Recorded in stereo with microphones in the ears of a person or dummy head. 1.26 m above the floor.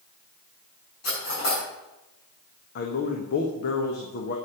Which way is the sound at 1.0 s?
50° left (ahead or behind).